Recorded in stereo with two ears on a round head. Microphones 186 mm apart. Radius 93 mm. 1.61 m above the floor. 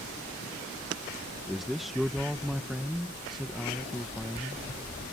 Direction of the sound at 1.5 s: Centre (ahead or behind).